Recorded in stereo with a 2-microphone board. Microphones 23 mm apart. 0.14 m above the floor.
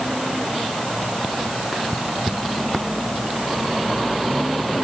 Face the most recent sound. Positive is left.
No sound to turn to.